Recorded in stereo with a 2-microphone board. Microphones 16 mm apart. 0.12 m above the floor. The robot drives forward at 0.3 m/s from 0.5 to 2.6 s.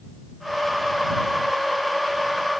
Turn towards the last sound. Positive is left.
No sound to turn to.